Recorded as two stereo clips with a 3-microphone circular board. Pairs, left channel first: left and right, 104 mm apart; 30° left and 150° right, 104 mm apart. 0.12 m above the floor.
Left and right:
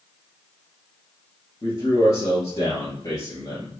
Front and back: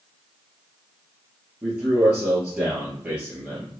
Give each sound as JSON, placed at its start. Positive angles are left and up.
{"t": 1.6, "sound": "a man speaking", "azimuth_deg": 135, "distance_m": 2.0}